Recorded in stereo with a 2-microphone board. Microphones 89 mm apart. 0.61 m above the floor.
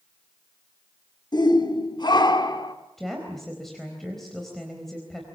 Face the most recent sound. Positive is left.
turn(degrees=0)  # may be behind; listen again after turning